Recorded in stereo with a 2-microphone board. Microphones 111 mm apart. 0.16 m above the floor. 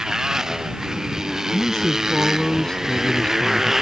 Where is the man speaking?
5° left (ahead or behind).